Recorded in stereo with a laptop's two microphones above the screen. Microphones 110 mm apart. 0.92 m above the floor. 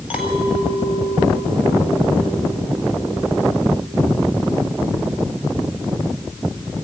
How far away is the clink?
About 3 m.